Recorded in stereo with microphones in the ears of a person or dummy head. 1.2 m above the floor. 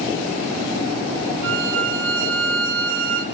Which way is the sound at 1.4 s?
65° right (ahead or behind).